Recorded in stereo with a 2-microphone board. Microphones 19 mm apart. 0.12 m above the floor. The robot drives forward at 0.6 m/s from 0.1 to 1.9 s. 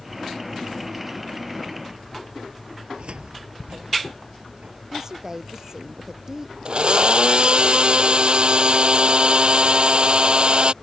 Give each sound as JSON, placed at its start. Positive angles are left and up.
{"t": 2.8, "sound": "a cupboard door", "side_deg": -60}
{"t": 4.9, "sound": "a woman speaking", "side_deg": -25}
{"t": 6.7, "sound": "a blender", "side_deg": -55}